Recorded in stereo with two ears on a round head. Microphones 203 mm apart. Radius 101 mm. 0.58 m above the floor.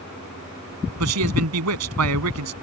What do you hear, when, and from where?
1.0 s a man speaking: 80° right